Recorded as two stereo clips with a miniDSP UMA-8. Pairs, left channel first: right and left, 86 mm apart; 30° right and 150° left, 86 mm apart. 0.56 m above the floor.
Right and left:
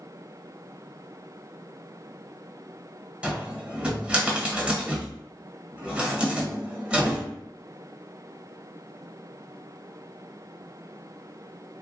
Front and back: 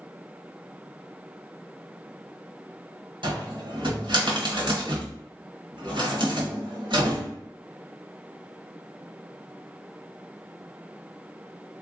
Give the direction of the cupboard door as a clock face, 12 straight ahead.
7 o'clock.